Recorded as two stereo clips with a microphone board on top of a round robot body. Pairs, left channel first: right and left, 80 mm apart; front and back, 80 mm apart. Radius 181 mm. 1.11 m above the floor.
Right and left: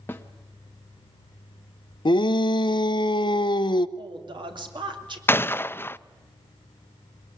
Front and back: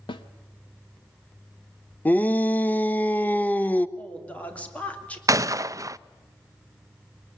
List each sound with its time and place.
0.1 s a snare drum: 25° right, 0.9 m
2.0 s a shout: 70° right, 0.8 m
4.0 s a woman speaking: 75° left, 3 m
5.3 s a gunshot: 145° right, 0.6 m